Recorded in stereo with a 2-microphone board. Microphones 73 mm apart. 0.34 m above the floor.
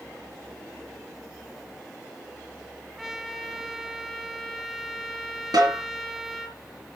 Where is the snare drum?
75° right (ahead or behind), 5.5 m.